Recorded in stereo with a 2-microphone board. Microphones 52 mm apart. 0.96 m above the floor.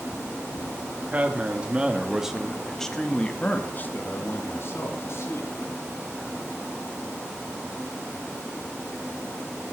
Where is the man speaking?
30° right (ahead or behind), 2.5 m; by 5.5 s 65° left (ahead or behind), 3 m.